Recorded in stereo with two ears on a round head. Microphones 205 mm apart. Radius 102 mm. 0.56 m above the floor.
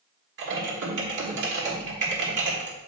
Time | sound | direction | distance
0.4 | typing on a keyboard | 50° right (ahead or behind) | 1.6 m